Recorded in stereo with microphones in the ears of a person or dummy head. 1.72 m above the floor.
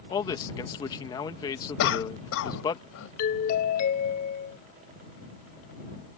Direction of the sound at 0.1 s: 20° left (ahead or behind).